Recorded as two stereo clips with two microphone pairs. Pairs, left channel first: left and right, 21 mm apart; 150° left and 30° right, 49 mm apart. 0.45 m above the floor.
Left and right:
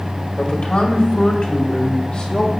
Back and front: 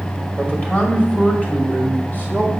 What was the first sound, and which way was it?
A man speaking, 80° left.